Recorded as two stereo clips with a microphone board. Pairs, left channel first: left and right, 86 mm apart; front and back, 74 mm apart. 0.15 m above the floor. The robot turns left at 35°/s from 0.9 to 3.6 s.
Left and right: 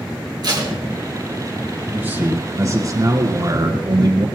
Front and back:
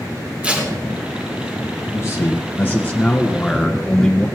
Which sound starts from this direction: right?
Tape being pulled, at 0.4 s.